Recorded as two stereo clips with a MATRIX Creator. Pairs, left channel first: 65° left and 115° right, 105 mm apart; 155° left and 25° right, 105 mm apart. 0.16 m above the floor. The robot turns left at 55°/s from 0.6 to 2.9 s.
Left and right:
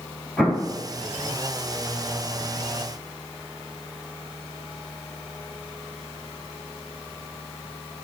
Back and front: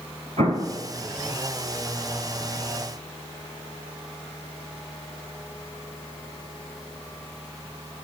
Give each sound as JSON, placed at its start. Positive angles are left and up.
{"t": 0.4, "sound": "an explosion", "azimuth_deg": -20, "distance_m": 1.4}